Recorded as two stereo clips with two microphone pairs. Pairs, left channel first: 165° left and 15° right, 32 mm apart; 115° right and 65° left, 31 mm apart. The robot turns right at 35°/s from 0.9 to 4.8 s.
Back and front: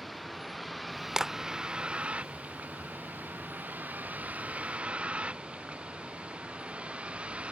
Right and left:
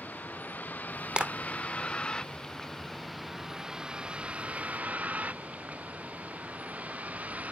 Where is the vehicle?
105° right; by 7.5 s 35° left.